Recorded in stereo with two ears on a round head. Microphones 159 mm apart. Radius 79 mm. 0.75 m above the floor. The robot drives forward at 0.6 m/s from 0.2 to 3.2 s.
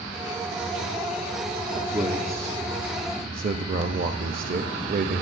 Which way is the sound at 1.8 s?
25° right (ahead or behind).